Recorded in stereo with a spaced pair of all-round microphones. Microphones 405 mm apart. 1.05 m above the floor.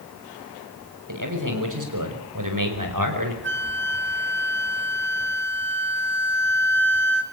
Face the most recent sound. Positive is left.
turn(degrees=-25)  # may be behind; listen again after turning